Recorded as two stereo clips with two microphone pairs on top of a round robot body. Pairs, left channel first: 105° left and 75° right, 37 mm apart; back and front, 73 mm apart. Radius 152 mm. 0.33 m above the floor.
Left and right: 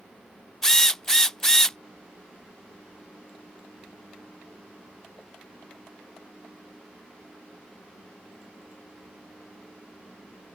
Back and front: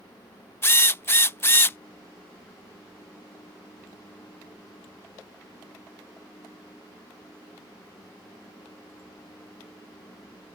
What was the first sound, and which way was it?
A drill, 165° left.